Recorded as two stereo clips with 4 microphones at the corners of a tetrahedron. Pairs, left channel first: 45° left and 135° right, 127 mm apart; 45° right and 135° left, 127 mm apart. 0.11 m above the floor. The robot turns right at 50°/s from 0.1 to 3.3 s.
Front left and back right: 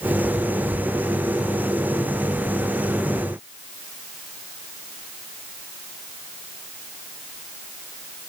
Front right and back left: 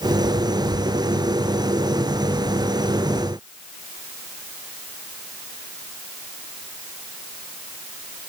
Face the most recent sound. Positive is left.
No sound to turn to.